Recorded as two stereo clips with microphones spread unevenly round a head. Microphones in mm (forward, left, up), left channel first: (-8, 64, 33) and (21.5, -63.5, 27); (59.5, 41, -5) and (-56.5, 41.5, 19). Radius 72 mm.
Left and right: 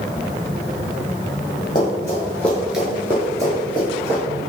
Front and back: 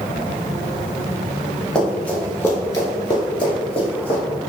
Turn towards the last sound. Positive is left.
turn(degrees=-45)